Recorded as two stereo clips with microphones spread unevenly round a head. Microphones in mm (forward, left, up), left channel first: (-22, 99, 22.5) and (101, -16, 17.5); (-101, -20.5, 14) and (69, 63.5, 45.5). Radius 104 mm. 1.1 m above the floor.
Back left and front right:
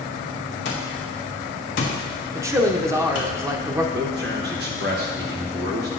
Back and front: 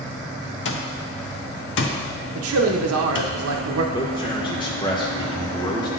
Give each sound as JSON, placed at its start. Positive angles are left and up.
{"t": 0.7, "sound": "an alarm clock", "azimuth_deg": 180, "distance_m": 0.7}
{"t": 2.4, "sound": "a man speaking", "azimuth_deg": 30, "distance_m": 0.7}
{"t": 3.9, "sound": "a man speaking", "azimuth_deg": -85, "distance_m": 0.9}